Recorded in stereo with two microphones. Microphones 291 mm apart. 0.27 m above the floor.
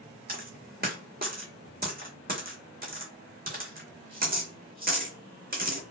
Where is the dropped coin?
30° right (ahead or behind), 0.9 m.